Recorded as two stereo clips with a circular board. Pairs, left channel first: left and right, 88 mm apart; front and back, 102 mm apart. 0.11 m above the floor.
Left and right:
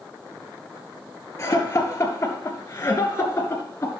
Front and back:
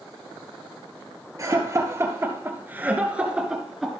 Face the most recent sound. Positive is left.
turn(degrees=85)